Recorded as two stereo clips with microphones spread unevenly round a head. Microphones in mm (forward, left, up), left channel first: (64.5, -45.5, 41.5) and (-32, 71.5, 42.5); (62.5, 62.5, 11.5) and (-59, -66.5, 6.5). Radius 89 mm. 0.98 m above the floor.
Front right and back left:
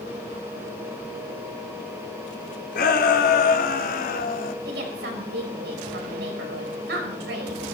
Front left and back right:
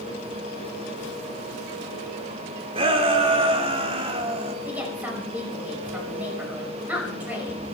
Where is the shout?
75° right, 3 m.